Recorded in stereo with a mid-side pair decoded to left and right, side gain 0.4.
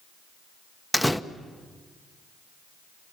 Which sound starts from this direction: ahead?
A door slam, at 0.9 s.